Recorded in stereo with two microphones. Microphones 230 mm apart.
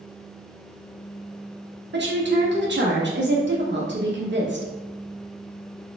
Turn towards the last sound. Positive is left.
turn(degrees=-55)  # may be behind; listen again after turning